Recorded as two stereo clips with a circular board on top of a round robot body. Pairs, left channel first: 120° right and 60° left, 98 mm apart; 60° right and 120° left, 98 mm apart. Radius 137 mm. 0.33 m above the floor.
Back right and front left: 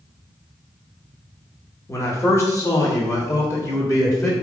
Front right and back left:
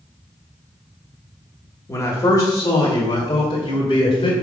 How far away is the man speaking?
About 1.5 m.